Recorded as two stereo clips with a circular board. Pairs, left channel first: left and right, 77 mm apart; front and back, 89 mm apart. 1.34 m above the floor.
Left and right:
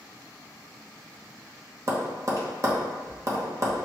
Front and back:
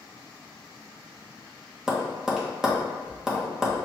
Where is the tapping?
100° right, 0.8 m.